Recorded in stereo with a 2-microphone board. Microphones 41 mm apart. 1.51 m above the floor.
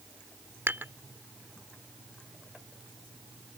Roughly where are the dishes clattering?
Right.